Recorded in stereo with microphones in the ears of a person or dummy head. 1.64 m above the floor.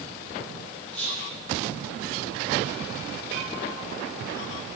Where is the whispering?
90° right, 3.5 m.